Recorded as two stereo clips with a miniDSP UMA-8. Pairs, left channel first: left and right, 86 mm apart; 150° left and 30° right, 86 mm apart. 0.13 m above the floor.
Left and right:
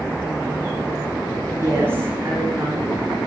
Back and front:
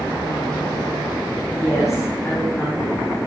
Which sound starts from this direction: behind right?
A woman speaking, at 1.5 s.